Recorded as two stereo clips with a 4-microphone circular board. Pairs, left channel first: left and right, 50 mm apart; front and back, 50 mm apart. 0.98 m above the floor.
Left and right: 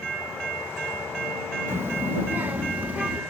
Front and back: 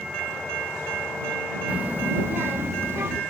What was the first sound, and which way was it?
A child speaking, 120° right.